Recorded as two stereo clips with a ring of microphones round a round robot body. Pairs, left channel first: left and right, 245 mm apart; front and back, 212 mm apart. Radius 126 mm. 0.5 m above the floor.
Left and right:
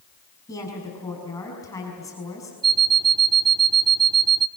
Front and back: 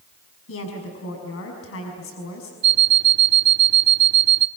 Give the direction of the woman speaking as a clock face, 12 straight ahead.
12 o'clock.